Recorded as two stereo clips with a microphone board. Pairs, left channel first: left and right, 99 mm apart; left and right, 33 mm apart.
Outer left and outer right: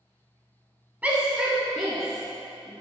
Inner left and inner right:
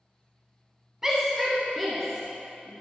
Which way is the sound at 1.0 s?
15° right (ahead or behind).